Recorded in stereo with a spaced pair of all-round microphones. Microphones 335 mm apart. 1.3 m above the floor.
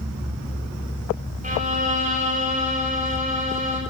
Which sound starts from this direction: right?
A violin, at 1.4 s.